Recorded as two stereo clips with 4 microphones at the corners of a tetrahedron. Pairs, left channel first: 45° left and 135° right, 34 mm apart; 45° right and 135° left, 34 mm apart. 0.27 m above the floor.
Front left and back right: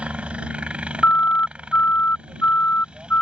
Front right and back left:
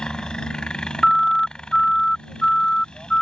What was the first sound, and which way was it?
A helicopter, 100° right.